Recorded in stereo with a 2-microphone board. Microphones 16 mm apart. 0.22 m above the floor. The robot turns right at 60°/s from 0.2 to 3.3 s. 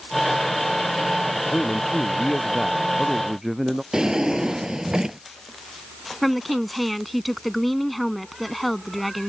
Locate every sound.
1.4 s a man speaking: 90° left; by 3.8 s 150° right
3.9 s a drawer: 45° right (ahead or behind)
6.2 s a woman speaking: centre (ahead or behind)